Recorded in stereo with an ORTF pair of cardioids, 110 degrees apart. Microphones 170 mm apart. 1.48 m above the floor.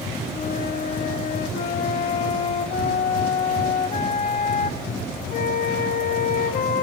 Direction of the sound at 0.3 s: 45° left.